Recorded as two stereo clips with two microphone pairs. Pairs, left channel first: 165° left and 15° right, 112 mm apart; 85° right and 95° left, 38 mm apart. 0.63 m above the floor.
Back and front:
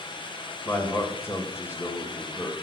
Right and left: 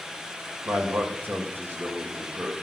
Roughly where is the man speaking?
Left.